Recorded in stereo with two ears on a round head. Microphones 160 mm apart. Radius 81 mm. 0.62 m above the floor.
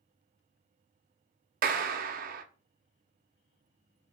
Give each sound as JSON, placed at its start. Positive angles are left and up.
{"t": 1.6, "sound": "a clap", "side_deg": -50, "distance_m": 0.6}